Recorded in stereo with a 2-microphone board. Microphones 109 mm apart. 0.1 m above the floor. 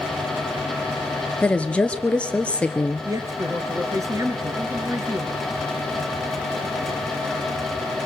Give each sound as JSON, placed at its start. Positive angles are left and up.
{"t": 1.4, "sound": "a woman speaking", "side_deg": 10, "distance_m": 1.4}
{"t": 3.0, "sound": "a man speaking", "side_deg": -30, "distance_m": 1.9}